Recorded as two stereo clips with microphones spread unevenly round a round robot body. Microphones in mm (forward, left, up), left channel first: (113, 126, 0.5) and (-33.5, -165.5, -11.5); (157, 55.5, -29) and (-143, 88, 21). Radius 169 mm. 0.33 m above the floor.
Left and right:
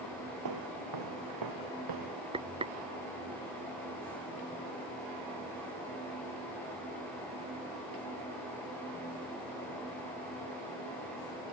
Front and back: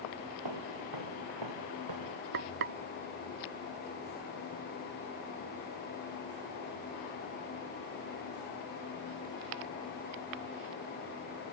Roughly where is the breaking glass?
I don't hear breaking glass.